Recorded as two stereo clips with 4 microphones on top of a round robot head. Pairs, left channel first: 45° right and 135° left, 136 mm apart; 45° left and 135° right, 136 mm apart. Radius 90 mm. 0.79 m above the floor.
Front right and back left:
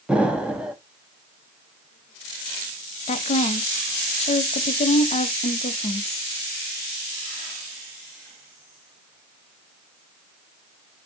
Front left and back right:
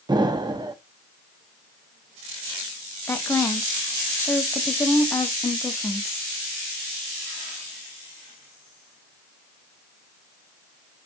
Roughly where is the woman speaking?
Ahead right.